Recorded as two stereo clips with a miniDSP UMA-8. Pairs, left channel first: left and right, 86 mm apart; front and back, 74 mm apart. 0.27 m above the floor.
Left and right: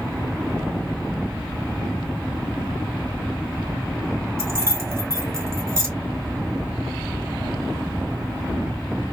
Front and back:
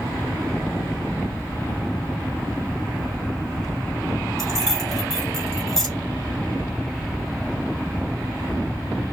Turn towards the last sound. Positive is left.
turn(degrees=-80)